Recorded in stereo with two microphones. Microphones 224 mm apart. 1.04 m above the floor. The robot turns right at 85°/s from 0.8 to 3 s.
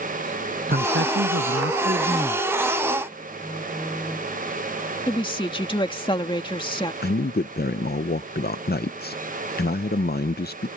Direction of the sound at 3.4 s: 5° left (ahead or behind).